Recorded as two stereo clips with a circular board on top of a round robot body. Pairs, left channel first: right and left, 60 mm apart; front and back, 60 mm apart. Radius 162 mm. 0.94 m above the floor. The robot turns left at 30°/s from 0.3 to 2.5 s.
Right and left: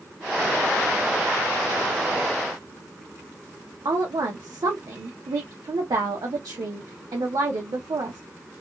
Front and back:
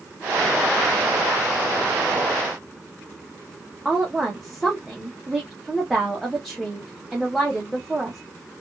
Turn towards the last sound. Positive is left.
turn(degrees=90)